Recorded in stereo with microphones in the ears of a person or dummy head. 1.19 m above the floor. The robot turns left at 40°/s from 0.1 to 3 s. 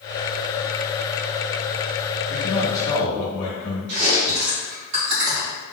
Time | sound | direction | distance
2.3 | a man speaking | 65° left (ahead or behind) | 1.3 m
3.9 | chewing | 55° right (ahead or behind) | 1.8 m